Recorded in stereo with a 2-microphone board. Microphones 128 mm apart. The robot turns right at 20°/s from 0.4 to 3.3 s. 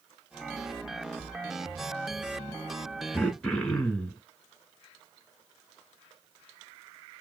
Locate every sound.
3.1 s throat clearing: 5° left (ahead or behind), 0.9 m